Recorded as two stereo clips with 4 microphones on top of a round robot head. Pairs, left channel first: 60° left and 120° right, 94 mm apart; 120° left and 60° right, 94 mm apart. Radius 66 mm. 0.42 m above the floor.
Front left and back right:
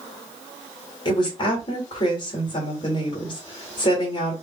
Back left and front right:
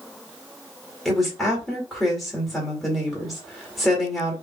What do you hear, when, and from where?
1.1 s a woman speaking: 35° left, 2 m